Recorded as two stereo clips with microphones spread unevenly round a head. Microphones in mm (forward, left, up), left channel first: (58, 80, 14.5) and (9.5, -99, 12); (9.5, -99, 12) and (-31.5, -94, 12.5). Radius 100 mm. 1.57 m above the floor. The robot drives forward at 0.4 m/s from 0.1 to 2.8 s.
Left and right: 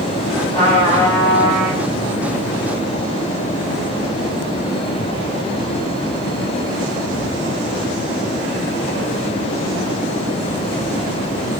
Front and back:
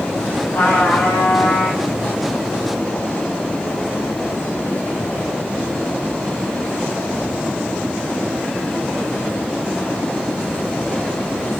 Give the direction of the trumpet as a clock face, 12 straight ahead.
11 o'clock.